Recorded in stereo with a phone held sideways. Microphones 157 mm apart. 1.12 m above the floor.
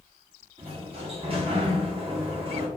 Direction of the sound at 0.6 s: 40° right (ahead or behind).